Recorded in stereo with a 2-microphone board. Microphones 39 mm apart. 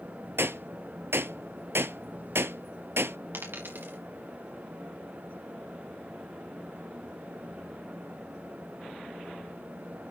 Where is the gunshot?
85° right, 0.8 m.